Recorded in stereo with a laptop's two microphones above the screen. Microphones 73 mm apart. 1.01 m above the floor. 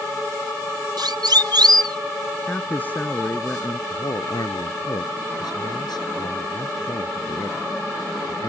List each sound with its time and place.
1.0 s a siren: 80° right
2.5 s a man speaking: 25° left (ahead or behind)
3.9 s a man speaking: 70° left (ahead or behind)